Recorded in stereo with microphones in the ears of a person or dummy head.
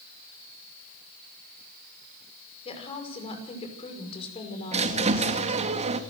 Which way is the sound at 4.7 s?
30° right (ahead or behind).